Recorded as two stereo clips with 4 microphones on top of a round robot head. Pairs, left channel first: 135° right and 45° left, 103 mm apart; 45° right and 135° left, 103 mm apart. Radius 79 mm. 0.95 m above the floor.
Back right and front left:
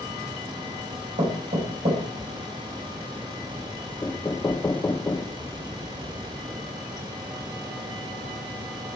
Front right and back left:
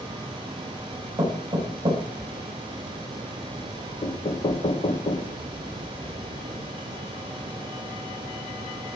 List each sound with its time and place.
1.2 s knocking: 70° left, 4.5 m
4.0 s knocking: 70° right, 0.8 m